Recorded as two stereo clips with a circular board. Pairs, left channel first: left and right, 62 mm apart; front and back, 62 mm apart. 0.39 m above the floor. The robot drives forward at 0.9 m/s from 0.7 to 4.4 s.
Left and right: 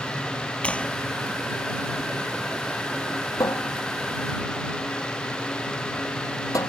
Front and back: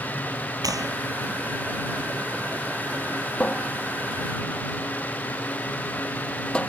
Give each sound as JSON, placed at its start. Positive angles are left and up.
{"t": 0.6, "sound": "a clap", "azimuth_deg": 160}
{"t": 3.4, "sound": "a cupboard door", "azimuth_deg": 70}